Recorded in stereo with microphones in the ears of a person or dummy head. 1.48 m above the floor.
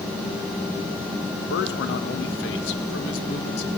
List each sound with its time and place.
1.5 s a man speaking: 75° left (ahead or behind), 1.6 m